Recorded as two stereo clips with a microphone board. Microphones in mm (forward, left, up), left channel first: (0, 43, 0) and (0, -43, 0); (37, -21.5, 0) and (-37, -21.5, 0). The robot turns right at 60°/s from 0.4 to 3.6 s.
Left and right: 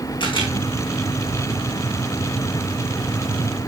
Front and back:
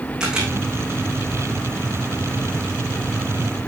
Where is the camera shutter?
100° left, 4 m; by 0.5 s 110° left, 4 m.